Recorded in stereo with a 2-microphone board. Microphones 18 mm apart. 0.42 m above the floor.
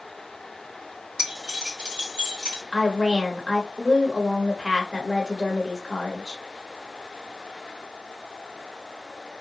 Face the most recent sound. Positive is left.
turn(degrees=-5)  # may be behind; listen again after turning